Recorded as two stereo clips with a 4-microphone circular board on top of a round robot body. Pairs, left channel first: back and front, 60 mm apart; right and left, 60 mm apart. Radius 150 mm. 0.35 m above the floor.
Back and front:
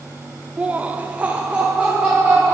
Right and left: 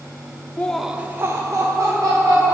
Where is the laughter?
55° right, 0.9 m; by 2.5 s 75° left, 2.5 m.